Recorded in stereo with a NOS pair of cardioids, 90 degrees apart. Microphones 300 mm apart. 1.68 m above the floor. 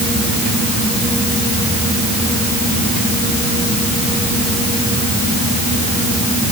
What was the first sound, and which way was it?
Only background noise.